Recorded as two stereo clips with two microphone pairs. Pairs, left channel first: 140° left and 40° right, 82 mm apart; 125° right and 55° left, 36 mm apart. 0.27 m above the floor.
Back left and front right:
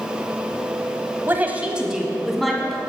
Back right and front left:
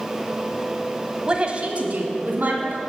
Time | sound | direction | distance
1.3 | a woman speaking | 5° left | 1.2 m